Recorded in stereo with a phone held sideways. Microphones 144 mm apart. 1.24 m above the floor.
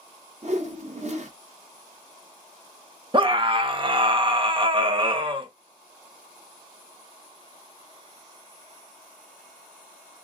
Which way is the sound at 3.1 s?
35° right (ahead or behind).